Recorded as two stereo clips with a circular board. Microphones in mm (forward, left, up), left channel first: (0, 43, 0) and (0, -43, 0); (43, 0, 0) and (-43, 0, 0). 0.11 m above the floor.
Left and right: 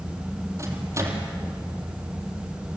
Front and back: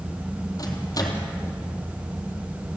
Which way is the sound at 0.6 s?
40° right.